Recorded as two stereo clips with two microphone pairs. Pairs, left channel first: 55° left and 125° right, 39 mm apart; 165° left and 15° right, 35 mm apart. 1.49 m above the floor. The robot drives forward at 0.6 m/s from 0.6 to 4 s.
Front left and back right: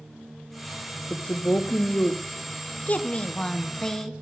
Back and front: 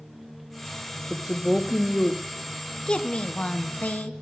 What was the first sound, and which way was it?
A woman speaking, 65° left.